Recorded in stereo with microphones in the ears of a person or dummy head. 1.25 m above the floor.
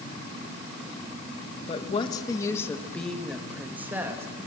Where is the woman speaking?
30° left (ahead or behind), 1.8 m; by 4.2 s 20° right (ahead or behind), 2.5 m.